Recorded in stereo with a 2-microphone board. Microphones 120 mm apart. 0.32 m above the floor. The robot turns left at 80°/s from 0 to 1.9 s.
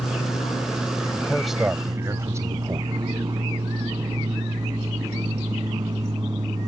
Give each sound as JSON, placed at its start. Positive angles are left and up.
{"t": 0.0, "sound": "an aircraft", "azimuth_deg": 115}
{"t": 1.2, "sound": "a man speaking", "azimuth_deg": 25}